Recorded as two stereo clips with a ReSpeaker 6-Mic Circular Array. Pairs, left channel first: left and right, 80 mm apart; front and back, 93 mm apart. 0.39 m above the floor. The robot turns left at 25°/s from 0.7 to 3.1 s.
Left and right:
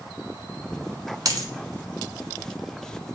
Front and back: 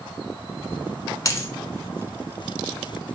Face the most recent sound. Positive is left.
turn(degrees=-100)